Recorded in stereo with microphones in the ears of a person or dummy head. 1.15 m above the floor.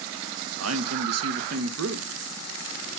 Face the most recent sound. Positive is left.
turn(degrees=-75)  # may be behind; listen again after turning